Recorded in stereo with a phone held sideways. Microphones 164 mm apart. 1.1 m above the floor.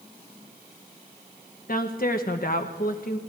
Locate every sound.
1.7 s a woman speaking: 65° left (ahead or behind), 1.1 m